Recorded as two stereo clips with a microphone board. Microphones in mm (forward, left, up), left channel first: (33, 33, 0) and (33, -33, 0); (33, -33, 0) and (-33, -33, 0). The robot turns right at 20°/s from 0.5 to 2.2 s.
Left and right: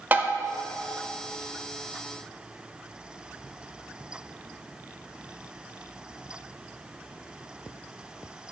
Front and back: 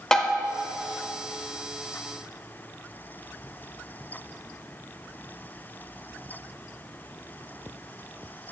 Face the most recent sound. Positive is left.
turn(degrees=-40)